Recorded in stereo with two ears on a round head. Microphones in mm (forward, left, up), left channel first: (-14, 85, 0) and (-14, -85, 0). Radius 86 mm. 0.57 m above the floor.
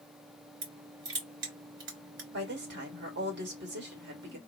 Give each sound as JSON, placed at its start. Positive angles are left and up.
{"t": 0.6, "sound": "crushing", "side_deg": -65, "distance_m": 3.0}
{"t": 2.3, "sound": "a woman speaking", "side_deg": -65, "distance_m": 2.5}